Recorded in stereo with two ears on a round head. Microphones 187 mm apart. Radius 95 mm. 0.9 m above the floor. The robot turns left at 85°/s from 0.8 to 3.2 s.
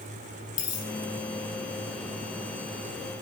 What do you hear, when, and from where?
0.6 s a dropped coin: 40° left (ahead or behind), 5.5 m; by 0.9 s 35° left (ahead or behind), 5.5 m